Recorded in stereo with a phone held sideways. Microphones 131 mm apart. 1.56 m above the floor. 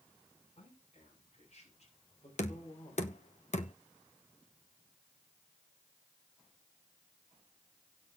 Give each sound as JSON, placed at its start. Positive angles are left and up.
{"t": 0.6, "sound": "a man speaking", "side_deg": 55, "distance_m": 6.5}
{"t": 2.4, "sound": "knocking", "side_deg": 60, "distance_m": 0.9}